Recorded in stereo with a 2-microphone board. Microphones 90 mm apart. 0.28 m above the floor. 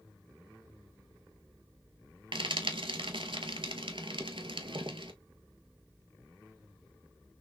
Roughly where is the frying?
Right.